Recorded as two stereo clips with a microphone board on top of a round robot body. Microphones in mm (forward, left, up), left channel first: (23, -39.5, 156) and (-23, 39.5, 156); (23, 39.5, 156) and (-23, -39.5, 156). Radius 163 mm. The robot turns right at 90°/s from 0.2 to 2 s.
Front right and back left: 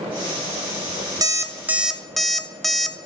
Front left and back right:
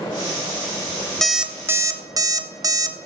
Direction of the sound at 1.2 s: 145° left.